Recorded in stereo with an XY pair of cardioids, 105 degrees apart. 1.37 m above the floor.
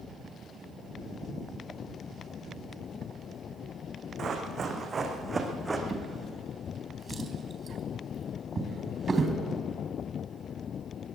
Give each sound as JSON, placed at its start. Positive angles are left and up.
{"t": 4.2, "sound": "running footsteps", "azimuth_deg": -50, "distance_m": 4.5}
{"t": 5.9, "sound": "a drawer", "azimuth_deg": -30, "distance_m": 3.5}